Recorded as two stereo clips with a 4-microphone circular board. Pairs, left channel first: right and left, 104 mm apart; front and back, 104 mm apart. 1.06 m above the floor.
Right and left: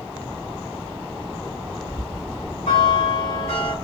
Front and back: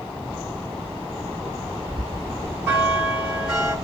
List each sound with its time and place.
1.9 s a bell: 90° right, 3 m